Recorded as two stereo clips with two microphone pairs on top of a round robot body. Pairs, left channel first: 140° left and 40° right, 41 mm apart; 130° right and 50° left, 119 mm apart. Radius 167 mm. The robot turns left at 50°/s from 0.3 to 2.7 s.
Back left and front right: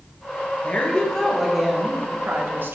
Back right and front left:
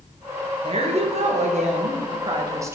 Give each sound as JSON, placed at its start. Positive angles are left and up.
{"t": 0.6, "sound": "a woman speaking", "azimuth_deg": 90, "distance_m": 1.3}